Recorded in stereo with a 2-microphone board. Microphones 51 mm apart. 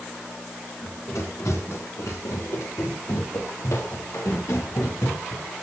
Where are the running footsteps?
75° left (ahead or behind), 7.5 m.